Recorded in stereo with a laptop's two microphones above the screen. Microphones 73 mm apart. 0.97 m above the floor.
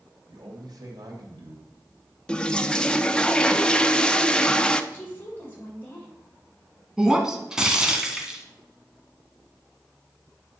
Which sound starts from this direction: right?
A man speaking, at 0.3 s.